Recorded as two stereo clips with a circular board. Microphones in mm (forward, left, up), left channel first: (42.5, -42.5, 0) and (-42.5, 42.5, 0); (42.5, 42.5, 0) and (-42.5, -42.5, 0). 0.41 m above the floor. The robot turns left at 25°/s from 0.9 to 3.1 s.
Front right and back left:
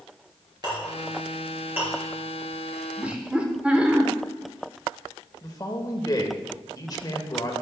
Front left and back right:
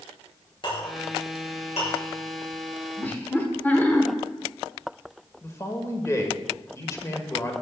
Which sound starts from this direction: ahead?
A man speaking, at 5.4 s.